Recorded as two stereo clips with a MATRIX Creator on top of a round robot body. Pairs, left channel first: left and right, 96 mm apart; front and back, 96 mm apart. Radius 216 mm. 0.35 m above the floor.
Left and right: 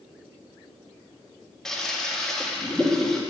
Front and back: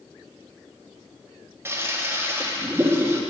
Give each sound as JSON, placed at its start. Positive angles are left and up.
{"t": 1.6, "sound": "a toilet flushing", "azimuth_deg": 170, "distance_m": 1.0}